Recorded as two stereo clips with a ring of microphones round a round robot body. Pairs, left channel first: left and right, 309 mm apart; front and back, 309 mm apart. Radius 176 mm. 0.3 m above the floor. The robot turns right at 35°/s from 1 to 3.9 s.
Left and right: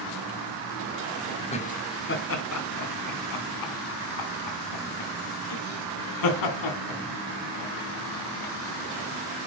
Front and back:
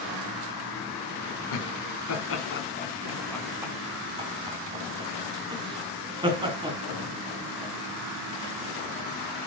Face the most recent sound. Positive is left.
turn(degrees=105)